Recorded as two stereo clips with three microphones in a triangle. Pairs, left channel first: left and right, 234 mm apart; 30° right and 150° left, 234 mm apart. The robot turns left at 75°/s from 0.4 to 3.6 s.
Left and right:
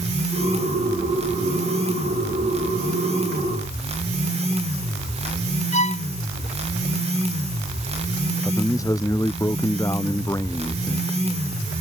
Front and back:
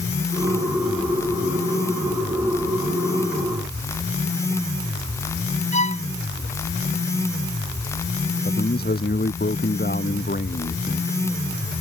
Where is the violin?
90° right.